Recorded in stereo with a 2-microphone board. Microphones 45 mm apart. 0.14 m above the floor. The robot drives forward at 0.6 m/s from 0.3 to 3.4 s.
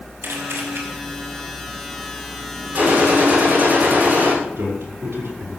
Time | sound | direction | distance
0.2 | a camera shutter | 60° right (ahead or behind) | 4.5 m
2.8 | a gunshot | 45° right (ahead or behind) | 9 m
4.6 | a man speaking | 65° right (ahead or behind) | 6 m